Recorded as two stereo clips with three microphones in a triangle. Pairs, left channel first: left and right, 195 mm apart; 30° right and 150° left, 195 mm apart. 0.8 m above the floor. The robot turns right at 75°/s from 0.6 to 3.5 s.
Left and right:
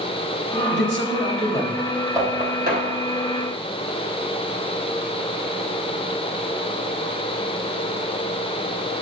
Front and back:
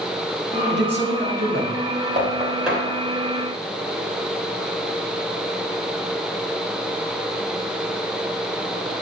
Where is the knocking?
160° right, 3.5 m; by 2.9 s 105° right, 3.5 m.